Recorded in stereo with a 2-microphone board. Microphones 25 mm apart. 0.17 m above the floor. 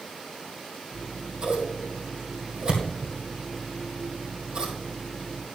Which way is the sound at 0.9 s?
35° right (ahead or behind).